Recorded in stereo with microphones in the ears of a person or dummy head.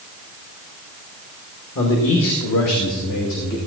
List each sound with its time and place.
1.8 s a man speaking: 70° left (ahead or behind), 2.5 m; by 3.6 s 60° left (ahead or behind), 2.5 m